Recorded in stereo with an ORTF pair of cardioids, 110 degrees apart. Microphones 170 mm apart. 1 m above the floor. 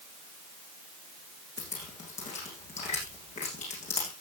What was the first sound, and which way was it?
Dripping, 45° left.